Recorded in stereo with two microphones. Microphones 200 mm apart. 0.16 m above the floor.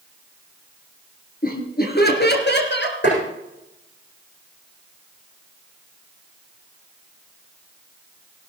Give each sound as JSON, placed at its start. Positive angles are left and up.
{"t": 1.4, "sound": "laughter", "side_deg": 50, "distance_m": 3.0}
{"t": 3.0, "sound": "tapping", "side_deg": 65, "distance_m": 8.5}